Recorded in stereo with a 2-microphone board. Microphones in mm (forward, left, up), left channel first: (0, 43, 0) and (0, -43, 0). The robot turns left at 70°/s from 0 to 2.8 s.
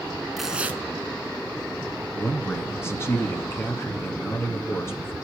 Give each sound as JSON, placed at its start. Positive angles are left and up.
{"t": 0.4, "sound": "tearing paper", "azimuth_deg": 0, "distance_m": 1.0}
{"t": 2.1, "sound": "a man speaking", "azimuth_deg": 175, "distance_m": 1.9}